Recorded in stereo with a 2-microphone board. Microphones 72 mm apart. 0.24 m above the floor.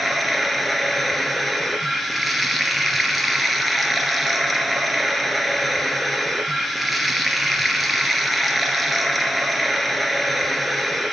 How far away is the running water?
About 1.7 m.